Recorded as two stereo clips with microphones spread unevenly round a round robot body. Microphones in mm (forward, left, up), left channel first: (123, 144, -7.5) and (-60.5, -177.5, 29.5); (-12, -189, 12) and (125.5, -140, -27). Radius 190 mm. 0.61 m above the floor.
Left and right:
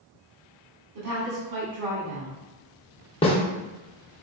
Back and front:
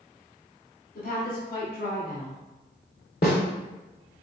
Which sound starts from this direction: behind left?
A snare drum, at 3.2 s.